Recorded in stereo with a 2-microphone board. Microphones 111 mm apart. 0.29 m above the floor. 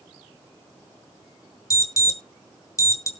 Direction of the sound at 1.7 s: 30° left (ahead or behind).